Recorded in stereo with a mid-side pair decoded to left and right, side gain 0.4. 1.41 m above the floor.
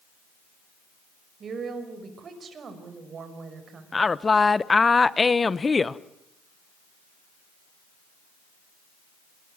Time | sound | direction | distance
1.4 | a woman speaking | 55° right | 5.5 m
3.9 | a woman speaking | 30° left | 1.0 m